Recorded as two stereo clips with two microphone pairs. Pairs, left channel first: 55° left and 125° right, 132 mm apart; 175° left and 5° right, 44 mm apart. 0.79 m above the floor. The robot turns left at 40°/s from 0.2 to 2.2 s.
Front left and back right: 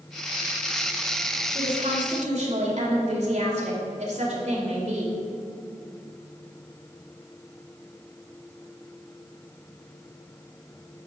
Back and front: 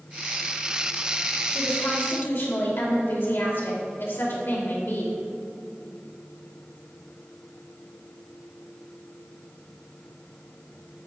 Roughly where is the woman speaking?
Behind right.